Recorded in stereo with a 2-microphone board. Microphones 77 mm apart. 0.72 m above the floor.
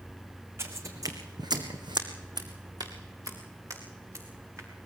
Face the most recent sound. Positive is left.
turn(degrees=-40)  # may be behind; listen again after turning